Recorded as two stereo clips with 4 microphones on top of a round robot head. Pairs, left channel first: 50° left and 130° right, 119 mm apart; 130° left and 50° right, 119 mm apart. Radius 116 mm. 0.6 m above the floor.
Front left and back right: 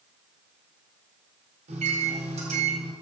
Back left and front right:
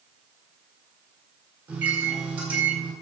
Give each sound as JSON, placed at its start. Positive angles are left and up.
{"t": 1.7, "sound": "a microwave", "azimuth_deg": -125, "distance_m": 4.0}